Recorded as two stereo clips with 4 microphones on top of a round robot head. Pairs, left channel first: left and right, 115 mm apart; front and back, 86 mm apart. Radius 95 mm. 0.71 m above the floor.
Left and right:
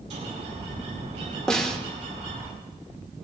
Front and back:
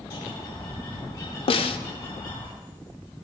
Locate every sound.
0.1 s a bird: 45° right, 8 m
1.5 s a snare drum: 5° left, 0.9 m